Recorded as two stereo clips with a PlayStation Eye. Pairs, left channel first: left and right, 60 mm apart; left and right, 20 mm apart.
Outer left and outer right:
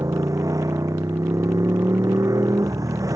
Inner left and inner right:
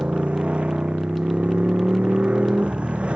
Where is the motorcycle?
65° right (ahead or behind).